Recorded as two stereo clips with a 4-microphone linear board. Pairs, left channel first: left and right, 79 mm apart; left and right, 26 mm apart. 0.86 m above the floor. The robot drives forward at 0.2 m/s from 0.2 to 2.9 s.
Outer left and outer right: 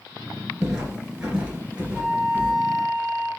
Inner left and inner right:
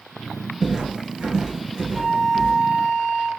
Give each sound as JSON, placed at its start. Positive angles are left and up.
{"t": 0.6, "sound": "footsteps", "side_deg": -10, "distance_m": 0.8}
{"t": 1.9, "sound": "a flute", "side_deg": 60, "distance_m": 1.2}